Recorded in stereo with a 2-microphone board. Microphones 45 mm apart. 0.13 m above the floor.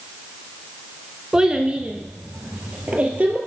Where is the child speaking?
15° right (ahead or behind), 0.6 m; by 3.4 s 30° right (ahead or behind), 1.7 m.